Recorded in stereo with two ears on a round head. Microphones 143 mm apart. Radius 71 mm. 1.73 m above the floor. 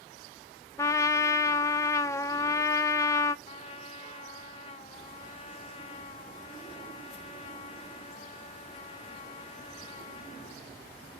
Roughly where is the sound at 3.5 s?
Left.